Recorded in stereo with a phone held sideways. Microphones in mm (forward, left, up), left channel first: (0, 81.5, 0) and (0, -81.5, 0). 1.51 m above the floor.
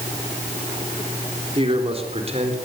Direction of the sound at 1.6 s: 35° right (ahead or behind).